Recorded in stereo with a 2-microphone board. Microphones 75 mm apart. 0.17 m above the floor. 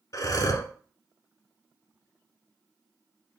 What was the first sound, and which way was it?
Breathing, 55° left (ahead or behind).